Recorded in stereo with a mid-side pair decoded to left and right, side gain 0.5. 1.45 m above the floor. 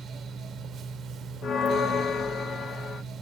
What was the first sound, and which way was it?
A fan, 60° right.